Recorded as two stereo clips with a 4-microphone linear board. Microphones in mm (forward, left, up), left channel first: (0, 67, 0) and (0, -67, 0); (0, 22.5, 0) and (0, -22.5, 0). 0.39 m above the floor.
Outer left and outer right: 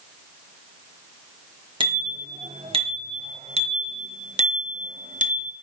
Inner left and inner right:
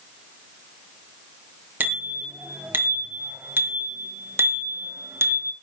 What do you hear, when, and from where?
1.8 s a bicycle bell: 40° right (ahead or behind), 5 m; by 5.5 s 75° right (ahead or behind), 3.5 m